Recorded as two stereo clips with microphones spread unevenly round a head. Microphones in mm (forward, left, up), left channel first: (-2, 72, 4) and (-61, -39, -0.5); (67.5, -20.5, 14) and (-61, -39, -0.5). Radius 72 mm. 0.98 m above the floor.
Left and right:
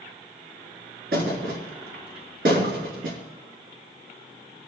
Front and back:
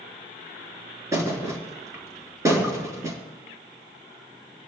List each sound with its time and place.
1.1 s a thud: 105° right, 3.5 m